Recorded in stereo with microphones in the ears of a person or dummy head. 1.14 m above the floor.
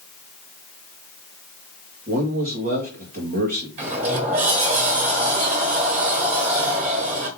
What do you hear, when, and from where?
2.1 s a man speaking: 40° right (ahead or behind), 1.1 m
3.8 s a sliding door: 40° right (ahead or behind), 1.2 m